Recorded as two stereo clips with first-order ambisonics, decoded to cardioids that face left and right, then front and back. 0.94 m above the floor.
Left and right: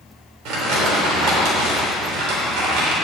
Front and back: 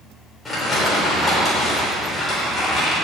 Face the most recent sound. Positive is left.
turn(degrees=-80)